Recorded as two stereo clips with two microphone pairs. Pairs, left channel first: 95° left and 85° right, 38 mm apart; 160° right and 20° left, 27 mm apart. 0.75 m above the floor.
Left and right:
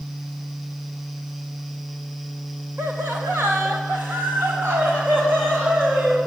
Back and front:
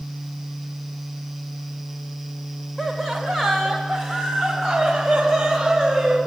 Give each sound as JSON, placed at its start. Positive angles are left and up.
{"t": 2.8, "sound": "laughter", "azimuth_deg": -80, "distance_m": 3.5}